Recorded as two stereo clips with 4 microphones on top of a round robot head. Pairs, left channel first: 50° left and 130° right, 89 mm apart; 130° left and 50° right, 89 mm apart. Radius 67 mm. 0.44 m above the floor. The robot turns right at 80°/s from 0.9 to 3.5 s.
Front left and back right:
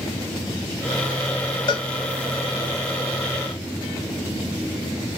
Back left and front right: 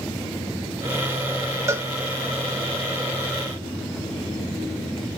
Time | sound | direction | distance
1.7 | a cowbell | 10° left | 0.6 m